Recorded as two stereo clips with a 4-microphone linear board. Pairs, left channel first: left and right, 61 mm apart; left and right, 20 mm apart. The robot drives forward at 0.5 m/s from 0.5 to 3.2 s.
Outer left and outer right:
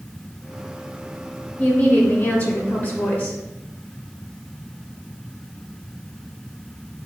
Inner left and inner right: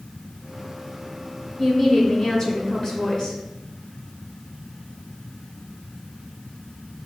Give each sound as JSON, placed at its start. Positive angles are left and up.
{"t": 1.6, "sound": "a woman speaking", "side_deg": 25, "distance_m": 1.3}